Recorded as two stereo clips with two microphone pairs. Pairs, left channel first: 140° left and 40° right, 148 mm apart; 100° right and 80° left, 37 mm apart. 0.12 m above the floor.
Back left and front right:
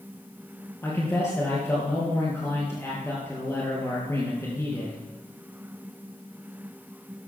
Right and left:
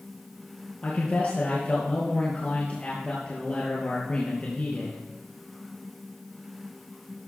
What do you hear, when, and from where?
0.8 s a man speaking: 150° right, 2.5 m